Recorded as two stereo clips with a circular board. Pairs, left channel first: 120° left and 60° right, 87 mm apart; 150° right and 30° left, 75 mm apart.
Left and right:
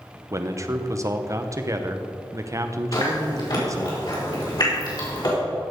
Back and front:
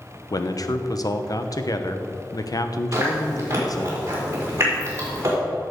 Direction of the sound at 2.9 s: 85° left.